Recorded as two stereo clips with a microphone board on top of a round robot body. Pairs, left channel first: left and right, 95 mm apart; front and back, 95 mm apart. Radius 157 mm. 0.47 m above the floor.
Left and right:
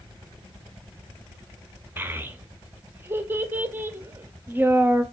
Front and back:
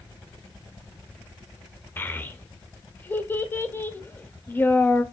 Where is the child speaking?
45° right, 0.8 m.